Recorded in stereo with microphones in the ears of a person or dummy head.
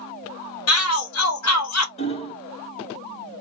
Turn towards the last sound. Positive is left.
turn(degrees=35)  # may be behind; listen again after turning